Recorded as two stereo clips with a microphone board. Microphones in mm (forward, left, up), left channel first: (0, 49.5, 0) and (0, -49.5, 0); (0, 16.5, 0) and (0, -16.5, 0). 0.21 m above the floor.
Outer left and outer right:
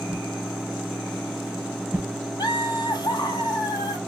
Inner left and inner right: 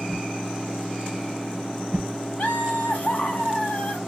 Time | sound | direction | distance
0.1 | a whoosh | 15° right (ahead or behind) | 0.6 m
2.4 | laughter | 40° left (ahead or behind) | 1.6 m